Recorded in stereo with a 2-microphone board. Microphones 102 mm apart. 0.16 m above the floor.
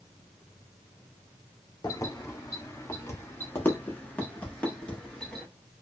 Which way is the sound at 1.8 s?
35° left (ahead or behind).